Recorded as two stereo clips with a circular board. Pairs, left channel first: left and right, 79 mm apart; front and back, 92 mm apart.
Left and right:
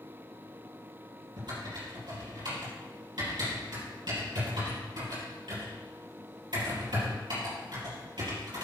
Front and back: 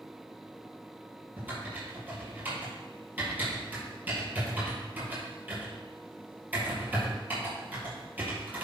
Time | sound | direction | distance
1.4 | typing on a keyboard | 110° right | 5 m